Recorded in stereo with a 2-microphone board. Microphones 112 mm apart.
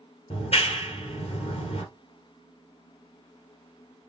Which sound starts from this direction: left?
A clap, at 0.3 s.